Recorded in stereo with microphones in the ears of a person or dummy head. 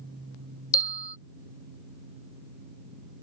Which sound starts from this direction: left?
A bell, at 0.7 s.